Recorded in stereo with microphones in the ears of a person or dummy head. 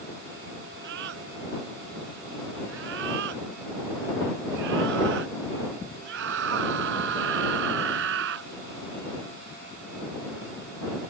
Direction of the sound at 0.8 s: 70° right (ahead or behind).